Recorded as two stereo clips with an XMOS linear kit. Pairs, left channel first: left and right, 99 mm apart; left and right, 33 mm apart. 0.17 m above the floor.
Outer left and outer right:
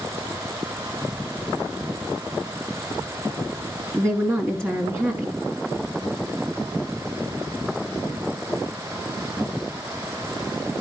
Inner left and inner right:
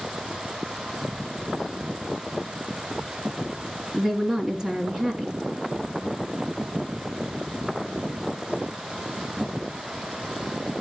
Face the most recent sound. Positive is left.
turn(degrees=-25)  # may be behind; listen again after turning